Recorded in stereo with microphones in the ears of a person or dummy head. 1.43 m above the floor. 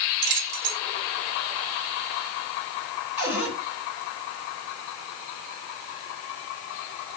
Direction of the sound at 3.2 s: 10° right (ahead or behind).